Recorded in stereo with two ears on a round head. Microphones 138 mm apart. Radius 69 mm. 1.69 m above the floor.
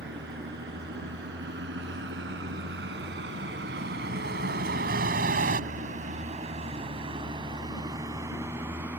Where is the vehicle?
75° right (ahead or behind); by 9.0 s 10° right (ahead or behind).